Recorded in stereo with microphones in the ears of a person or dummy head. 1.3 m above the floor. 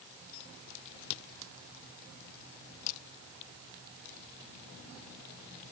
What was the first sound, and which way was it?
Only background noise.